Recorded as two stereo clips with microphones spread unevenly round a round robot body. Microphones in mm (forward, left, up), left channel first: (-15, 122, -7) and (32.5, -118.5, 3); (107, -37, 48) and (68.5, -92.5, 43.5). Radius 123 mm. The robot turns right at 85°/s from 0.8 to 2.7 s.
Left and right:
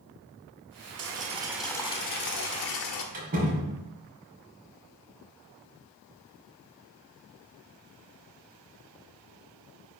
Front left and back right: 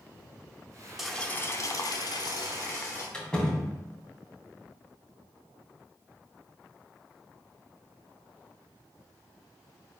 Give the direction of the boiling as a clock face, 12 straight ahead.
1 o'clock.